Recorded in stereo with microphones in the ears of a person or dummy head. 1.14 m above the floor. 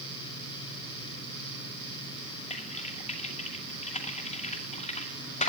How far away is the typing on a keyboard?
About 2 m.